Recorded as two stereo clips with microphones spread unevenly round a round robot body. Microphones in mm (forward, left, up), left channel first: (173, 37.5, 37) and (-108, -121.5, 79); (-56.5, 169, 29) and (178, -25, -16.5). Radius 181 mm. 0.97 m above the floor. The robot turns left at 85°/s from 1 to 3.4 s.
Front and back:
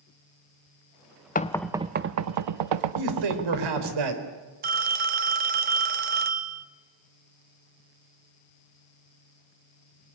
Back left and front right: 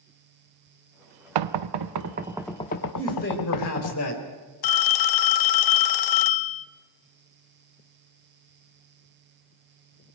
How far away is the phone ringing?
About 1.0 m.